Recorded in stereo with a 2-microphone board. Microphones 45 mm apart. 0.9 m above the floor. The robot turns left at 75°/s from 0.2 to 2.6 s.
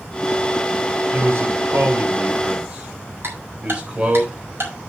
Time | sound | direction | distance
1.1 | a man speaking | 40° right (ahead or behind) | 3.5 m
3.2 | ticking | 55° right (ahead or behind) | 4.5 m